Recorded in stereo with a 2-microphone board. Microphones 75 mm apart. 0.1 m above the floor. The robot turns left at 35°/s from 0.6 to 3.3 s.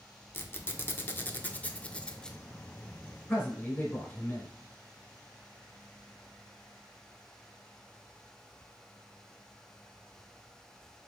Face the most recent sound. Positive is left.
turn(degrees=25)  # may be behind; listen again after turning